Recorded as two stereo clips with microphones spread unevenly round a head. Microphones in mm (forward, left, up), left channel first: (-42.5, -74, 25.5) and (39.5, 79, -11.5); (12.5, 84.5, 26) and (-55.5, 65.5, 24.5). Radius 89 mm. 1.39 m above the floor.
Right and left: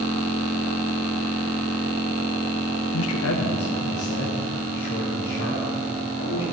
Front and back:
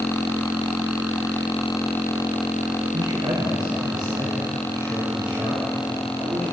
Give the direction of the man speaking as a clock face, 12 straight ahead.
4 o'clock.